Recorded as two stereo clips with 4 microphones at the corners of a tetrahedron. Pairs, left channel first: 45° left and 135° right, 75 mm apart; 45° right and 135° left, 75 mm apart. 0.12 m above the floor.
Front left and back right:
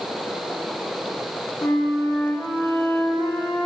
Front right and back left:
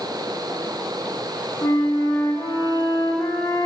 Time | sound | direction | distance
1.6 | a flute | straight ahead | 5.5 m